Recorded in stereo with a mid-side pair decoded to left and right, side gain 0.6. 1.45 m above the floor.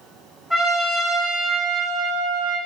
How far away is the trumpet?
About 1.3 m.